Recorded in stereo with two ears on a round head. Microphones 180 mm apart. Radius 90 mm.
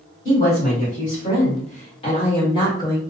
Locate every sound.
0.2 s a woman speaking: 35° left (ahead or behind), 1.9 m; by 3.0 s 15° left (ahead or behind), 1.4 m